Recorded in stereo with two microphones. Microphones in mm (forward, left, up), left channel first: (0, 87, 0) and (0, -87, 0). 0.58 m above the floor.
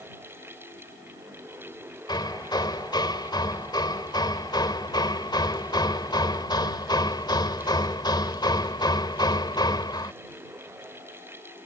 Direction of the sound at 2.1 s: 25° left (ahead or behind).